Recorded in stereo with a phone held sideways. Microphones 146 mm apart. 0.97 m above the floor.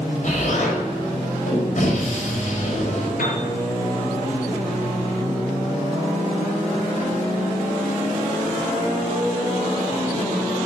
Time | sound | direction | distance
0.2 | an explosion | 65° left (ahead or behind) | 4.5 m
3.2 | a piano | 80° left | 5 m